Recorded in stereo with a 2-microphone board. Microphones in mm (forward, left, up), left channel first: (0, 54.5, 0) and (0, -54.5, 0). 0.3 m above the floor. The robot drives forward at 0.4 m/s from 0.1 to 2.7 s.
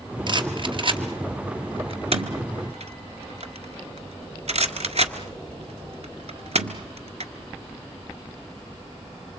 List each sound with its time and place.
0.3 s a rattle: 45° right (ahead or behind), 2 m; by 7.3 s 70° right (ahead or behind), 1.6 m